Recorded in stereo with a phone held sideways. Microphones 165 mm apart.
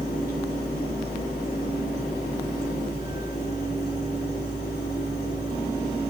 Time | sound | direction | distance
0.0 | a fan | 85° left | 3 m